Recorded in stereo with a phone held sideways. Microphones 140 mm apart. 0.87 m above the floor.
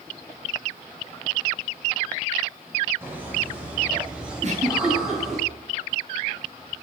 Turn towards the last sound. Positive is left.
turn(degrees=-55)  # may be behind; listen again after turning